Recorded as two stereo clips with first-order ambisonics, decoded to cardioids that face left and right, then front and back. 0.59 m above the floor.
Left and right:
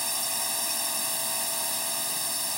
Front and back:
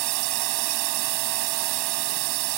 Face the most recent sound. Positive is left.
turn(degrees=180)